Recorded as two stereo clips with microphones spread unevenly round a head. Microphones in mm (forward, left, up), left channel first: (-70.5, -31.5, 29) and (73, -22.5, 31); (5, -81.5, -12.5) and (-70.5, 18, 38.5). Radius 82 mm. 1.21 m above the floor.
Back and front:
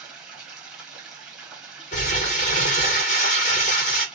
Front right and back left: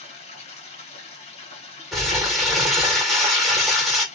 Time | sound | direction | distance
0.0 | running water | 85° right | 1.4 m
1.9 | crumpling | 140° right | 1.5 m